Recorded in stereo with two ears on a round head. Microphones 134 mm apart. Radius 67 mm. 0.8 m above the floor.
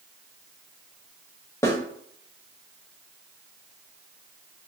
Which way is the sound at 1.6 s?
15° left (ahead or behind).